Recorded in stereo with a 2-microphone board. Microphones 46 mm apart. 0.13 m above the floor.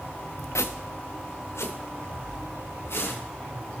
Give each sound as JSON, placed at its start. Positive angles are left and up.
{"t": 0.6, "sound": "footsteps", "side_deg": 85, "distance_m": 0.8}